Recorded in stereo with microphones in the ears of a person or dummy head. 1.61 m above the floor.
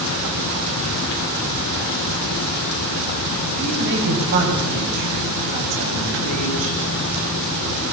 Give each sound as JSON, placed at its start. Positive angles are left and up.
{"t": 3.6, "sound": "a woman speaking", "side_deg": -55, "distance_m": 9.0}